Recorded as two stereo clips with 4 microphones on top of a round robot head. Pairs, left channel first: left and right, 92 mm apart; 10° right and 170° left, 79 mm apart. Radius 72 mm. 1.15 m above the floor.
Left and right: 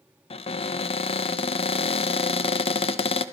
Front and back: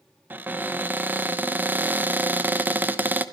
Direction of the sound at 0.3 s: 105° left.